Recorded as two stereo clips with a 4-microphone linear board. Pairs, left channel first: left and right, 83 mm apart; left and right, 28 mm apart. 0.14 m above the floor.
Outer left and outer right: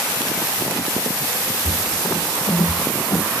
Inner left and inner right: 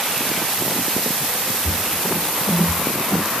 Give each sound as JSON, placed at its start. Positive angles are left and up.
{"t": 1.6, "sound": "footsteps", "side_deg": 45, "distance_m": 0.9}